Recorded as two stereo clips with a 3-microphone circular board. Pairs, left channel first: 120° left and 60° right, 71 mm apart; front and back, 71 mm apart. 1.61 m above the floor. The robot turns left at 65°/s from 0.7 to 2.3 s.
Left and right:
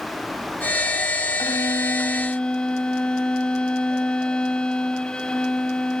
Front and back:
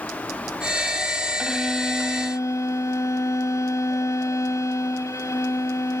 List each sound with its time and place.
1.4 s a violin: 105° left; by 6.0 s 45° left